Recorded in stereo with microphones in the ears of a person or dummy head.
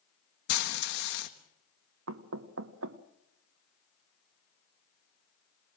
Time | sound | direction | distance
0.5 | frying | 65° left (ahead or behind) | 1.4 m
2.1 | knocking | 85° right | 0.9 m